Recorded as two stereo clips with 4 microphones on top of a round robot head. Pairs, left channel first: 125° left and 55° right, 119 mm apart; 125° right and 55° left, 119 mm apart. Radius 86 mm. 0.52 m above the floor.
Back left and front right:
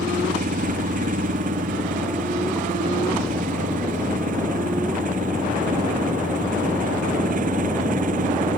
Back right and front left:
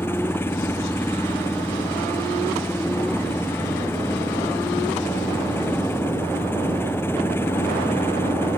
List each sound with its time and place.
0.0 s an engine running: 55° right